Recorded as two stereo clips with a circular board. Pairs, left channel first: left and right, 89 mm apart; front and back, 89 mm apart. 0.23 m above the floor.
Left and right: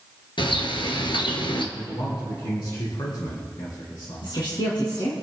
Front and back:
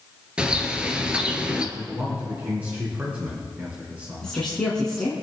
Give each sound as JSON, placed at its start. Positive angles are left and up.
{"t": 0.4, "sound": "a bird", "azimuth_deg": 100, "distance_m": 1.5}
{"t": 1.8, "sound": "a man speaking", "azimuth_deg": 110, "distance_m": 3.0}
{"t": 4.2, "sound": "a woman speaking", "azimuth_deg": 80, "distance_m": 2.5}